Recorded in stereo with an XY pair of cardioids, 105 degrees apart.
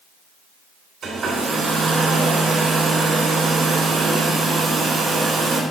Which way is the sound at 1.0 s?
55° right.